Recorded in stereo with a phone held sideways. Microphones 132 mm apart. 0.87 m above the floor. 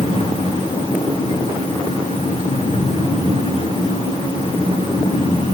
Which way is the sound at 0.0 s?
50° left (ahead or behind).